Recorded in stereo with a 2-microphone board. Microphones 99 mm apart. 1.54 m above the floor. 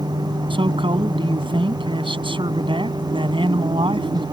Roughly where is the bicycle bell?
I don't hear a bicycle bell.